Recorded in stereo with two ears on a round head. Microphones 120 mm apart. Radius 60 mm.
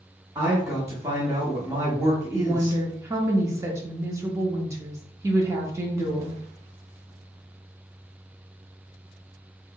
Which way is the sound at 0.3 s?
20° right (ahead or behind).